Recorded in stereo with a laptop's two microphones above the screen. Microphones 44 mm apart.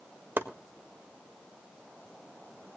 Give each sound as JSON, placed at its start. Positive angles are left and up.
{"t": 0.4, "sound": "chopping", "side_deg": -50, "distance_m": 1.6}